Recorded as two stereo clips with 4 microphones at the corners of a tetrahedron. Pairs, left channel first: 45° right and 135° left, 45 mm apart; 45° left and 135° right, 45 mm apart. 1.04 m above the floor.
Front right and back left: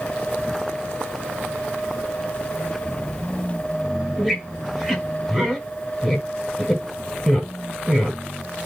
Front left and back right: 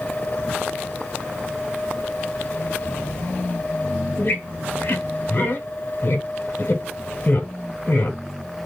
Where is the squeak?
55° left, 1.0 m.